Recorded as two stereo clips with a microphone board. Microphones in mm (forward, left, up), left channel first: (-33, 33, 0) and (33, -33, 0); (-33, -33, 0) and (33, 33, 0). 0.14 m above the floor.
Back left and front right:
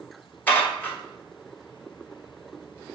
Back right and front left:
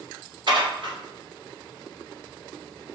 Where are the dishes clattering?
65° left, 1.7 m.